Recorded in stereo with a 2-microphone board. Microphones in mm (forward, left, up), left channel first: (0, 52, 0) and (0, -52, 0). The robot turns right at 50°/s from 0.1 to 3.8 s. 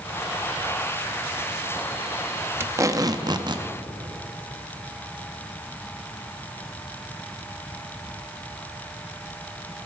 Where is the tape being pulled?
145° right, 0.6 m; by 3.7 s 95° right, 0.6 m.